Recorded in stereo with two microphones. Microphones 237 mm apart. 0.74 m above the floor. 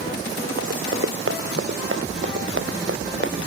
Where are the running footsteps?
65° right (ahead or behind); by 3.4 s 50° right (ahead or behind).